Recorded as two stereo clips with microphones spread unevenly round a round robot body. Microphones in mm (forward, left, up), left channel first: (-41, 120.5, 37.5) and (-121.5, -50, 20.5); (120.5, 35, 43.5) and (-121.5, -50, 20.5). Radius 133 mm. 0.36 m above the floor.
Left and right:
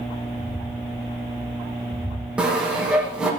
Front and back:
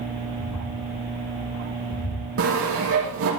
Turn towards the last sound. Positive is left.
turn(degrees=160)